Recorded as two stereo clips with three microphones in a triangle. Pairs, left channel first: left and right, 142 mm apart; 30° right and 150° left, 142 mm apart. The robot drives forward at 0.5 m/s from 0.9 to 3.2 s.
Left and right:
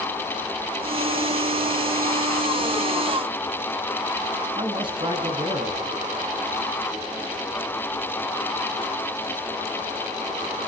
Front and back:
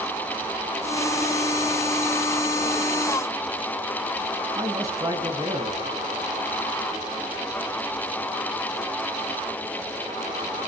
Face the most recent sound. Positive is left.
turn(degrees=-145)